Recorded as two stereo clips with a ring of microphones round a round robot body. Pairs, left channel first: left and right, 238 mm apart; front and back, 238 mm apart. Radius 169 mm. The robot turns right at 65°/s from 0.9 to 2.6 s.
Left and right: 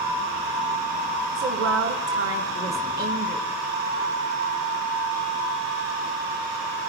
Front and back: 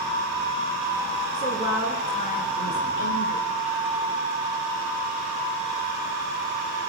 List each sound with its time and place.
1.4 s a woman speaking: 115° right, 1.3 m; by 3.5 s 30° right, 1.3 m